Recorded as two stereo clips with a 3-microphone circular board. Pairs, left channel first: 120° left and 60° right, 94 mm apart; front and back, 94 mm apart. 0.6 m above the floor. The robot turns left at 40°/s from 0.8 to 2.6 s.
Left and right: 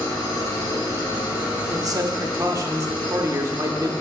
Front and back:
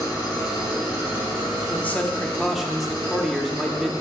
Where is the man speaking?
55° right, 0.7 m; by 3.9 s 90° right, 0.7 m.